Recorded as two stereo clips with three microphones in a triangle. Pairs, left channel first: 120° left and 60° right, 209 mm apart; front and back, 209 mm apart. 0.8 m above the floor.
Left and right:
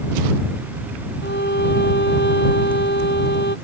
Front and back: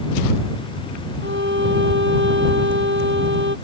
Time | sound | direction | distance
1.2 | a violin | 155° left | ?